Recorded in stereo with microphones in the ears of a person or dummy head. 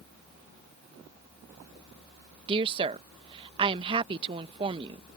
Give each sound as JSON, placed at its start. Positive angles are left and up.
{"t": 2.5, "sound": "a woman speaking", "side_deg": -30}